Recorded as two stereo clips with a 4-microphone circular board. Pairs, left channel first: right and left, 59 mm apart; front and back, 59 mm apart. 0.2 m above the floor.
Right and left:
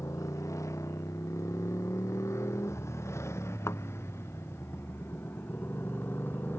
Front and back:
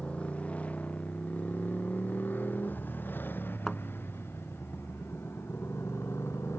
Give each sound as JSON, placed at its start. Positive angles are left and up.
{"t": 0.0, "sound": "a motorcycle", "azimuth_deg": -65}
{"t": 3.7, "sound": "a thud", "azimuth_deg": -80}